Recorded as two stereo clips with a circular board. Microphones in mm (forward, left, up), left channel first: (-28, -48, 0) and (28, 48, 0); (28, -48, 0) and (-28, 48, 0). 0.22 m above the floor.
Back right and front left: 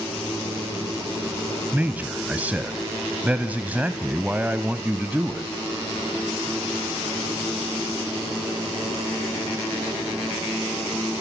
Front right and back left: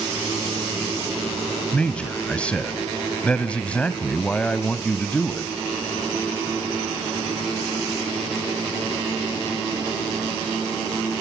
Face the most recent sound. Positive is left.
turn(degrees=5)